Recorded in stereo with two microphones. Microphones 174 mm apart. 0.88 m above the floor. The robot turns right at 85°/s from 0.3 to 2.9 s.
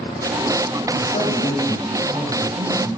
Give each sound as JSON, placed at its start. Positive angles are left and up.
{"t": 0.9, "sound": "a man speaking", "azimuth_deg": 95, "distance_m": 1.1}